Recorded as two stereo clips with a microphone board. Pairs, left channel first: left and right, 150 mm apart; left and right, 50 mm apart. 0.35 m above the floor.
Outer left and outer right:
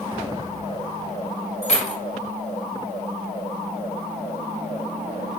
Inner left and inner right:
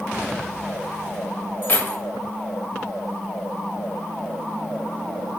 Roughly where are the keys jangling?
Left.